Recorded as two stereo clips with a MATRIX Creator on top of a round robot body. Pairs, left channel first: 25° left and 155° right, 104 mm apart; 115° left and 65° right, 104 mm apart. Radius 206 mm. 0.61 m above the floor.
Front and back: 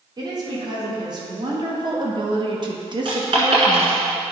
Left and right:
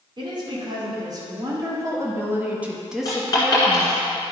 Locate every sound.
0.2 s a woman speaking: 110° right, 3 m; by 4.0 s 160° left, 1.4 m
3.0 s a dropped coin: 165° left, 1.6 m